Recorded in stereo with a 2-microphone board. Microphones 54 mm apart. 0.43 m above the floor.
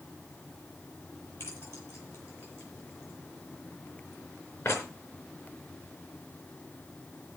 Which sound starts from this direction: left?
Keys jangling, at 1.4 s.